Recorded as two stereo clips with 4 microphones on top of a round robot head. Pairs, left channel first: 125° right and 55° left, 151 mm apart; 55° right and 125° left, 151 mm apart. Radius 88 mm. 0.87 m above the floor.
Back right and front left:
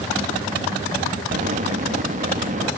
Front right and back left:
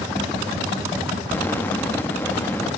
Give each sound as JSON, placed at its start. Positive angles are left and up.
{"t": 1.3, "sound": "an explosion", "azimuth_deg": 20}